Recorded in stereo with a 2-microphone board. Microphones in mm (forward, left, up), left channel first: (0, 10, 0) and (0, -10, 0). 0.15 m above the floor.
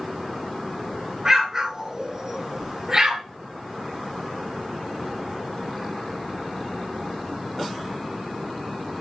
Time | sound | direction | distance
1.2 | an explosion | 35° right (ahead or behind) | 1.4 m